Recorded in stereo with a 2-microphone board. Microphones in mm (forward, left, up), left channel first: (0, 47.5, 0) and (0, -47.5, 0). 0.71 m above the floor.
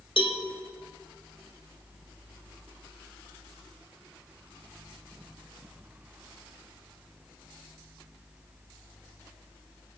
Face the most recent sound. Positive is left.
turn(degrees=80)